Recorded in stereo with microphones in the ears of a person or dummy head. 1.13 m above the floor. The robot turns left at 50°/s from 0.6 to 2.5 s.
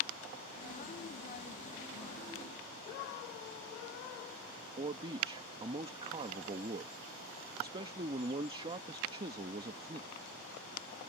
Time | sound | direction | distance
4.8 | a man speaking | 25° right (ahead or behind) | ?